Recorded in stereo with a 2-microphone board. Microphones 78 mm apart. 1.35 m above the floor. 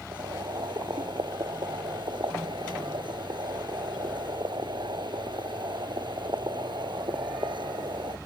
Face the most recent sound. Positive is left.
turn(degrees=-90)